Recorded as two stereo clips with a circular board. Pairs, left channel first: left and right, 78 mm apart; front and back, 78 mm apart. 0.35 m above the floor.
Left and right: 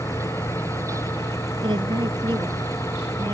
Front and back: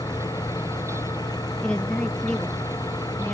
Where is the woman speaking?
75° right.